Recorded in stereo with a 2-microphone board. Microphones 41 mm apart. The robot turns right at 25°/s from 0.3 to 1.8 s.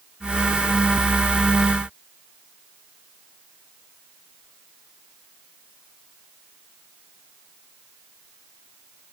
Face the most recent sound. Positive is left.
No sound to turn to.